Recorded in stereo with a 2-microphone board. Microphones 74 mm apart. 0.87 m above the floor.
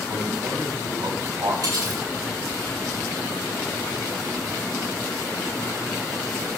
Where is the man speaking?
75° right (ahead or behind), 5.5 m; by 1.5 s 65° right (ahead or behind), 5 m.